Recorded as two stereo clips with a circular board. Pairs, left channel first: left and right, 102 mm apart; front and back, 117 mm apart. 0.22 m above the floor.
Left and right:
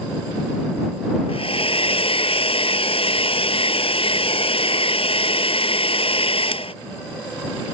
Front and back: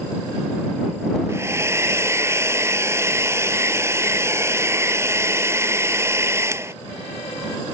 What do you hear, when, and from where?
1.3 s a hair dryer: 115° left